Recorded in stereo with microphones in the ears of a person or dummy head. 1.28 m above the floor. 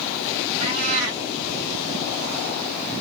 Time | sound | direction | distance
0.6 | a cat meowing | 65° right (ahead or behind) | 2.5 m